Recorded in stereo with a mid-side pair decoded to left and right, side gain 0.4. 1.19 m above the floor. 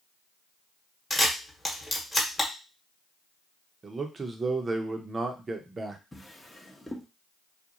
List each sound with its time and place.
1.1 s a camera shutter: 20° left, 1.1 m
3.8 s a man speaking: 35° right, 0.7 m
6.1 s a drawer: 10° left, 0.8 m